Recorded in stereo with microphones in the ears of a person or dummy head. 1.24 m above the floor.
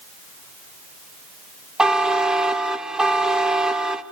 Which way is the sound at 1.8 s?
Centre (ahead or behind).